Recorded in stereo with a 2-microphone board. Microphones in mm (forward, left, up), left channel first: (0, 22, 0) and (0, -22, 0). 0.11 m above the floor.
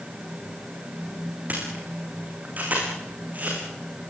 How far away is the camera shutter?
About 9.5 m.